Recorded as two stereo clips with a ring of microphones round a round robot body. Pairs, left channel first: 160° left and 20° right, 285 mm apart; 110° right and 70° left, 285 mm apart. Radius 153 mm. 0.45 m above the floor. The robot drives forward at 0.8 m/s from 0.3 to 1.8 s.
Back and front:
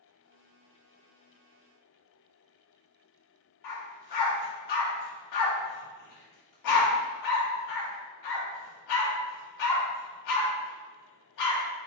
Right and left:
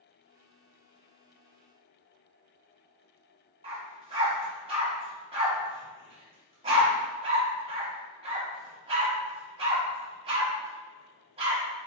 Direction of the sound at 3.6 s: 140° left.